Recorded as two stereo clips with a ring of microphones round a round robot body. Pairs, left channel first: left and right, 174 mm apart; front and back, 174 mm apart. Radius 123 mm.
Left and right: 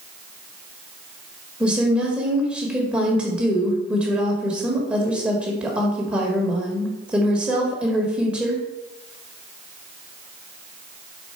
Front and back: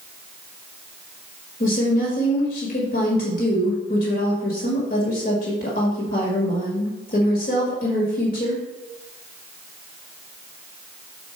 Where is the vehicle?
I don't hear a vehicle.